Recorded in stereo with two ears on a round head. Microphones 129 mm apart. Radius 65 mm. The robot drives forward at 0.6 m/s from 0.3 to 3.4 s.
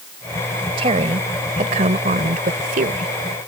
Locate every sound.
0.8 s a woman speaking: 40° right (ahead or behind); by 3.1 s 60° right (ahead or behind)